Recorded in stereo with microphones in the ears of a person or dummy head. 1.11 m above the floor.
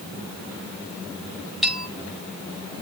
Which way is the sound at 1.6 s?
Centre (ahead or behind).